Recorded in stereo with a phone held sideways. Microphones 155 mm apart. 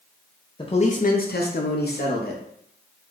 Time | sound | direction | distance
0.6 | a man speaking | 30° left (ahead or behind) | 0.6 m